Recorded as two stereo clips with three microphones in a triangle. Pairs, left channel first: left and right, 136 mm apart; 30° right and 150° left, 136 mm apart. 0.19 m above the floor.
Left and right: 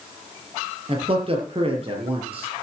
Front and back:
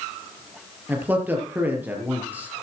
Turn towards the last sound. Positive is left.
turn(degrees=-135)